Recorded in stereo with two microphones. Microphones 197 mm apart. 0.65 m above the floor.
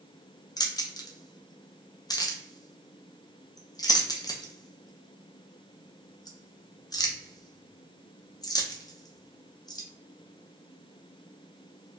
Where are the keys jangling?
20° left (ahead or behind), 0.5 m.